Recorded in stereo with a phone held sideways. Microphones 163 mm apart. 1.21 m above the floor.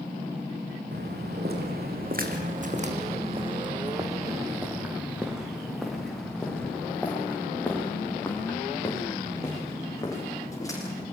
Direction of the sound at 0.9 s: 75° right (ahead or behind).